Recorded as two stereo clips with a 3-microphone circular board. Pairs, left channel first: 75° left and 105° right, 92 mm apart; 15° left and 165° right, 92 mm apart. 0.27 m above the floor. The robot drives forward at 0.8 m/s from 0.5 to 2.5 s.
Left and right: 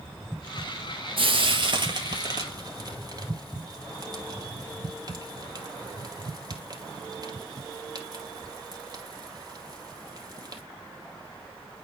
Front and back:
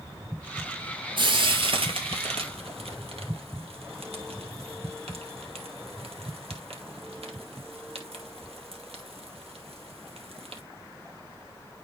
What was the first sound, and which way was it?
Frying, 130° right.